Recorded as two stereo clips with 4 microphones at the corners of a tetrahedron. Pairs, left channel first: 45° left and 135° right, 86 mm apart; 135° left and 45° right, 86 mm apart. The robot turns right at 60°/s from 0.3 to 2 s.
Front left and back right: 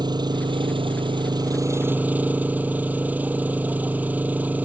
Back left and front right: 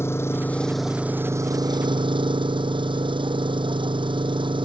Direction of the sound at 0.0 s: 165° right.